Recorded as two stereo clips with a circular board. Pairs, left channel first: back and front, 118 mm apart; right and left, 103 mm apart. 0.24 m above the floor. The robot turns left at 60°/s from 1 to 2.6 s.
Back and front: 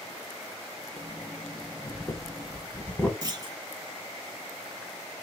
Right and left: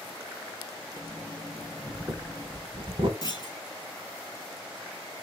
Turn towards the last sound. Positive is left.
turn(degrees=-50)